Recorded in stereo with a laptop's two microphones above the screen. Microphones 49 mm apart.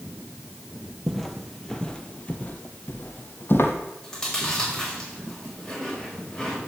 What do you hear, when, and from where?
1.1 s footsteps: centre (ahead or behind), 1.1 m; by 3.7 s 50° left (ahead or behind), 1.6 m
4.0 s chewing: 5° left (ahead or behind), 5 m